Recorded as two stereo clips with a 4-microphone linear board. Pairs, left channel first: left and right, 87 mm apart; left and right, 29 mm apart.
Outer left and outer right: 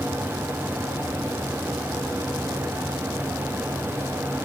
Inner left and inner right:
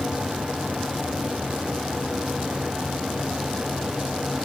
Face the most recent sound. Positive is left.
No sound to turn to.